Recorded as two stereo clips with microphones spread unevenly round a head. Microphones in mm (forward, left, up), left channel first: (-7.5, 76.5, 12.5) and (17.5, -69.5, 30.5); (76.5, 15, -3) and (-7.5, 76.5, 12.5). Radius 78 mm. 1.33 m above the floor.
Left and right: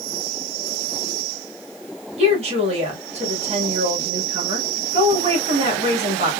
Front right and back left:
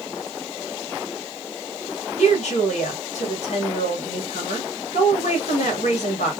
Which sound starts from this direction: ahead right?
A woman speaking, at 2.2 s.